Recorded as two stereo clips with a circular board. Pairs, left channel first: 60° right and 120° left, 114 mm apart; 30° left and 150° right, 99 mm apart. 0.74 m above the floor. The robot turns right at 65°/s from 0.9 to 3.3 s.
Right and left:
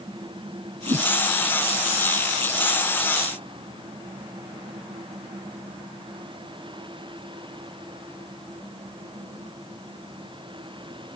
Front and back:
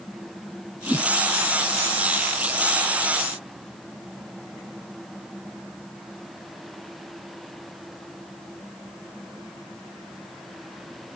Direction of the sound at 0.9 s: 105° left.